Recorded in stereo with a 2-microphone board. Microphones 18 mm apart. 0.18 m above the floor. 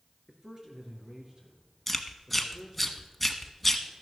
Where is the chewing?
5° left (ahead or behind), 1.0 m.